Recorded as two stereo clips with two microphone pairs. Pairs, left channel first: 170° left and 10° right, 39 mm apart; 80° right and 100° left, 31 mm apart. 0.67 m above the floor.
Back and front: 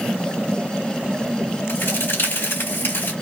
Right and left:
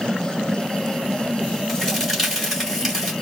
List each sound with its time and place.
1.7 s a crack: straight behind, 2.5 m